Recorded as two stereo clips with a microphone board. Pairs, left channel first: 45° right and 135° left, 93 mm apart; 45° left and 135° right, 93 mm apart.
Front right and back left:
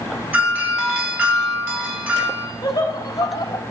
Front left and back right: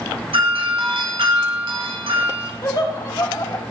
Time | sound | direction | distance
0.3 | a doorbell | 155° right | 4.5 m
2.6 | laughter | 5° left | 3 m